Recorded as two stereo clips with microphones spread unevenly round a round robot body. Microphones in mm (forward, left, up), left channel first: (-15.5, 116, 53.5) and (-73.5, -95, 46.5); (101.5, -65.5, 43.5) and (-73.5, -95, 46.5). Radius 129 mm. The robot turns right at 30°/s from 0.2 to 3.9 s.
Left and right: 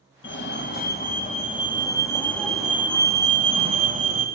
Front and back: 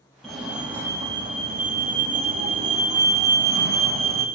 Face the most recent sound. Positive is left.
turn(degrees=-155)